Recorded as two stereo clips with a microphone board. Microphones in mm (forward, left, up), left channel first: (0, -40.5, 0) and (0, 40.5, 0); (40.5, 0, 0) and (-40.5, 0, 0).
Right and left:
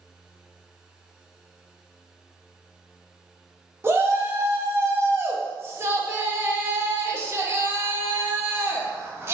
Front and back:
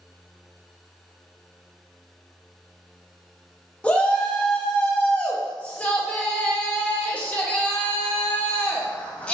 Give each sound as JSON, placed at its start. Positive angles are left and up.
{"t": 3.8, "sound": "a shout", "azimuth_deg": 65, "distance_m": 0.6}